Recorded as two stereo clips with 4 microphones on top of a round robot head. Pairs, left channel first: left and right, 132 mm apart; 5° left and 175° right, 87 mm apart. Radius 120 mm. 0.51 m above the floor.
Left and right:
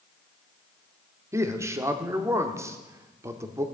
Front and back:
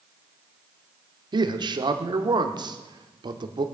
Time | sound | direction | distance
1.3 | a man speaking | 155° right | 1.3 m